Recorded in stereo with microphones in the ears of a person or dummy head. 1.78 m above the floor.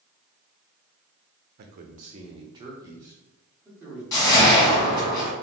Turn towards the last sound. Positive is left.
turn(degrees=20)  # may be behind; listen again after turning